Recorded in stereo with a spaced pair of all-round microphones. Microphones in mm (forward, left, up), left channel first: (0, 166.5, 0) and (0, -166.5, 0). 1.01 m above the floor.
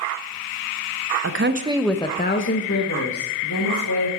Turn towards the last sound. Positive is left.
turn(degrees=70)  # may be behind; listen again after turning